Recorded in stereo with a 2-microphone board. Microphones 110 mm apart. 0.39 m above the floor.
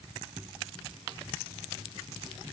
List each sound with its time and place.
Only background noise.